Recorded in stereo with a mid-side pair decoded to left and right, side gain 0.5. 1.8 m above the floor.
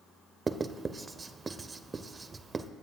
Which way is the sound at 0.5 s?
30° right.